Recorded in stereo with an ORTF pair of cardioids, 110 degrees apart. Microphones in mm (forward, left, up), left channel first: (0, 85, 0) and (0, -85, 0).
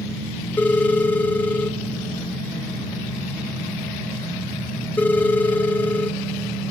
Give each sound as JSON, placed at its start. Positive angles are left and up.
{"t": 0.6, "sound": "a phone ringing", "azimuth_deg": 10, "distance_m": 1.0}